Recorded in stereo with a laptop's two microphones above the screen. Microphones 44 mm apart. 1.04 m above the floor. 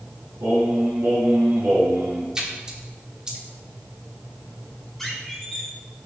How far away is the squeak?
About 1.9 m.